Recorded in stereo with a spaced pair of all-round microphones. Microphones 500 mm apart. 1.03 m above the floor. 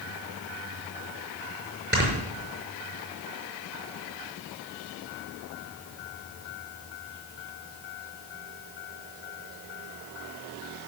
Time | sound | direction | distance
1.9 | snoring | 25° right (ahead or behind) | 5 m